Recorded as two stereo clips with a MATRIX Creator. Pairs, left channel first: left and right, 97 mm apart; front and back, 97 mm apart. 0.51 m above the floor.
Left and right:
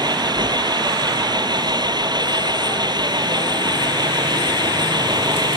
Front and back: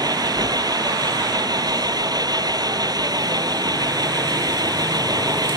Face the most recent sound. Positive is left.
turn(degrees=-135)